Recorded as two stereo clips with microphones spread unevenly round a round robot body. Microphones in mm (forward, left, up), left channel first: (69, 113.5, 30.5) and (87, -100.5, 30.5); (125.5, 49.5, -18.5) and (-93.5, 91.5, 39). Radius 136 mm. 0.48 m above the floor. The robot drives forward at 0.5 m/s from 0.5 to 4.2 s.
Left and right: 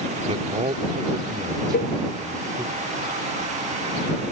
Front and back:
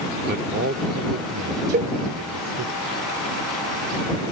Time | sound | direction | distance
0.2 | a man speaking | 135° right | ?
1.7 | a cowbell | 105° left | ?